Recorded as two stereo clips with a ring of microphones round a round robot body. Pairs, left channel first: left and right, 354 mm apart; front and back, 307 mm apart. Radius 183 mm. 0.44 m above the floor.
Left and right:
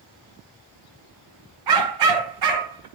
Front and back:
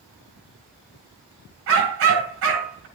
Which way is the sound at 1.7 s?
125° right.